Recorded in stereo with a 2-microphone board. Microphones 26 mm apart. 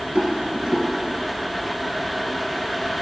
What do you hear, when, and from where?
0.1 s a rattle: 45° right (ahead or behind), 2 m